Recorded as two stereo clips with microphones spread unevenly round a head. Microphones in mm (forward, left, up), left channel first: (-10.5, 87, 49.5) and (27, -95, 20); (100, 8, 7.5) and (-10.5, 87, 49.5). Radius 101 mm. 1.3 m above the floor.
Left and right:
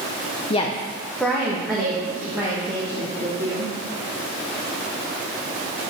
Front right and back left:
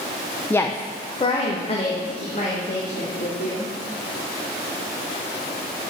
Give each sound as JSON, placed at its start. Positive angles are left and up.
{"t": 0.5, "sound": "a woman speaking", "azimuth_deg": 40, "distance_m": 0.6}